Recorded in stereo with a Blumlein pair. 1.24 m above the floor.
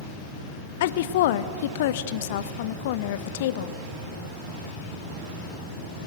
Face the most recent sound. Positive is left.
turn(degrees=55)